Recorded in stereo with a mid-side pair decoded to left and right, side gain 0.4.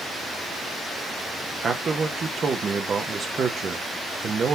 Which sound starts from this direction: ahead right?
A man speaking, at 1.6 s.